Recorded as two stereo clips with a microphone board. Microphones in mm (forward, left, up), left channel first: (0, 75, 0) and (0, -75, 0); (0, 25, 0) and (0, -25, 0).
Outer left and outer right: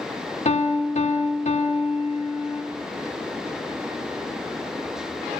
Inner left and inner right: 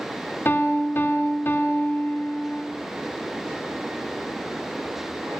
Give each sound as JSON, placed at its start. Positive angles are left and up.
{"t": 0.5, "sound": "a piano", "side_deg": 50, "distance_m": 1.5}